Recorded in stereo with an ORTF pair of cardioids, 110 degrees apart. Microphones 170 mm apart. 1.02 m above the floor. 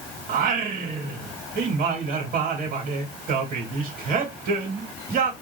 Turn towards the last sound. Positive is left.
turn(degrees=-60)